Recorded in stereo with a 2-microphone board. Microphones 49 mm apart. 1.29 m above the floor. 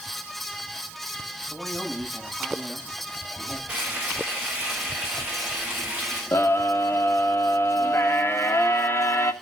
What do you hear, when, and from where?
1.5 s a man speaking: 10° right (ahead or behind), 6.5 m
3.7 s frying: 25° right (ahead or behind), 7 m
6.3 s a scream: 55° left (ahead or behind), 1.6 m